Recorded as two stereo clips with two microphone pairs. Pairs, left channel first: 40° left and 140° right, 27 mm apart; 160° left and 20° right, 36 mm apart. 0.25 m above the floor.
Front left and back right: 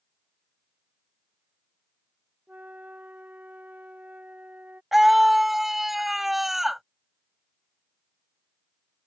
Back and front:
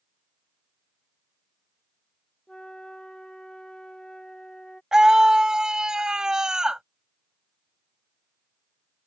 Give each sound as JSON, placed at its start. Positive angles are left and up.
{"t": 2.5, "sound": "a flute", "azimuth_deg": -130}
{"t": 4.9, "sound": "a scream", "azimuth_deg": -70}